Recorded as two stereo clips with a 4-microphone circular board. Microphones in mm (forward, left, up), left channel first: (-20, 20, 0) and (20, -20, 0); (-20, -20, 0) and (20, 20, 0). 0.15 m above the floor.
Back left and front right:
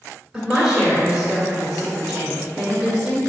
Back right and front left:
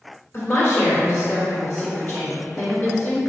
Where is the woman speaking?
105° right, 1.5 m.